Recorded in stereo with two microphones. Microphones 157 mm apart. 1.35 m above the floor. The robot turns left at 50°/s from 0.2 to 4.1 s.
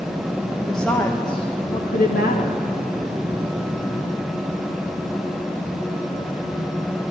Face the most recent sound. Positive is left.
turn(degrees=10)